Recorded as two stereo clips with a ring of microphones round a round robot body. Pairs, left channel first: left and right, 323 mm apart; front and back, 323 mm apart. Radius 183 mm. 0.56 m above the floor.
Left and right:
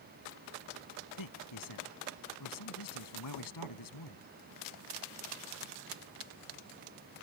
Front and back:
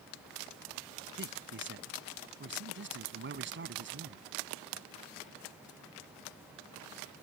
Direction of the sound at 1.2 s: 125° left.